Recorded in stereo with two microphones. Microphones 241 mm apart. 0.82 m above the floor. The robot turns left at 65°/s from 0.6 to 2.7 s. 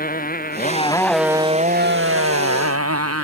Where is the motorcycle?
35° left; by 3.2 s 100° right.